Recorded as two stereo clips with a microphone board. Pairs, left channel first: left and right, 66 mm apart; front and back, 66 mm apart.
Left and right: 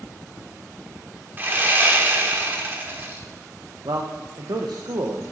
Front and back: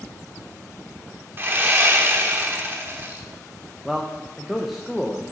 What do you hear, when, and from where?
1.4 s sawing: 135° right, 1.0 m
3.9 s a man speaking: 95° right, 0.7 m